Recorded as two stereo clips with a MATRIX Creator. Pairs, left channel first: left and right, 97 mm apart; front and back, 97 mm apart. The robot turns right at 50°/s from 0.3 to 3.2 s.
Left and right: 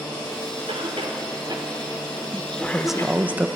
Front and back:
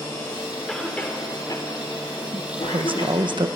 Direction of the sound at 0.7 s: 90° right.